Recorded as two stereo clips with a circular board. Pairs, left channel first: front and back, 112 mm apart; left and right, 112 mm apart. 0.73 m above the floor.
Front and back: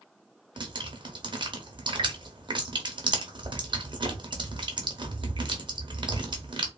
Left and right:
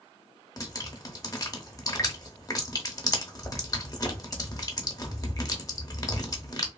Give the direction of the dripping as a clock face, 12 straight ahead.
7 o'clock.